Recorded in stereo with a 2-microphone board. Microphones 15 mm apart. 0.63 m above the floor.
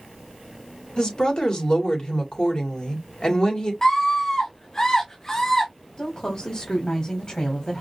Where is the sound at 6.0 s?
50° left (ahead or behind), 1.7 m.